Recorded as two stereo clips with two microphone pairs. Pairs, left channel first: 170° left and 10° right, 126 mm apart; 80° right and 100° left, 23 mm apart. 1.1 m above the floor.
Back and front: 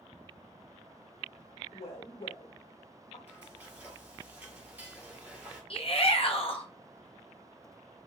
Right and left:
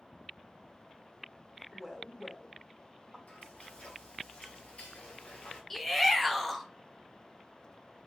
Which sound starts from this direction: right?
Frying, at 3.3 s.